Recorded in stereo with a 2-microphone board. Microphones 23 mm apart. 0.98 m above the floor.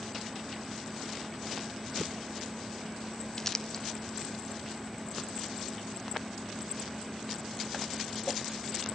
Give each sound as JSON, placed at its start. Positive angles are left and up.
{"t": 3.4, "sound": "crumpling", "side_deg": 15, "distance_m": 0.6}